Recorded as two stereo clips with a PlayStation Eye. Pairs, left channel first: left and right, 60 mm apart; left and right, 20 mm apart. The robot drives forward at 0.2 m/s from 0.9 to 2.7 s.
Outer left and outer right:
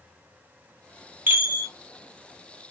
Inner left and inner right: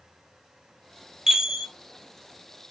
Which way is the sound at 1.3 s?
30° right (ahead or behind).